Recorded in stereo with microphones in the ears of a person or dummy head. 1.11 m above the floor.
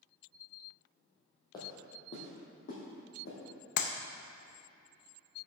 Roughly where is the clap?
Left.